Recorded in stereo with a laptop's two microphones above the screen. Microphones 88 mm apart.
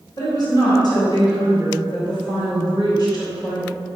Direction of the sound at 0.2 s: 50° left (ahead or behind).